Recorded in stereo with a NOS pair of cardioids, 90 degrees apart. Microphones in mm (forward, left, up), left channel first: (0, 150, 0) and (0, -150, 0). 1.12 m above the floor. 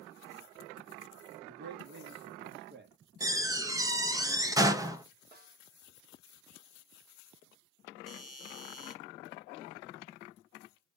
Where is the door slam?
10° right, 1.0 m.